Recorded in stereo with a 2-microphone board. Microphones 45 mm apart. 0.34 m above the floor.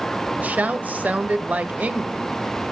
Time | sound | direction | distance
0.4 | a woman speaking | 40° right (ahead or behind) | 1.1 m